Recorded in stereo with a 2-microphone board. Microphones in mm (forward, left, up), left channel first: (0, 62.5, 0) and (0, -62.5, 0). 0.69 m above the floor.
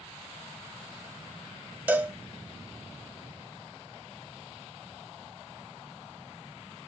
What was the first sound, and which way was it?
A cowbell, 15° right (ahead or behind).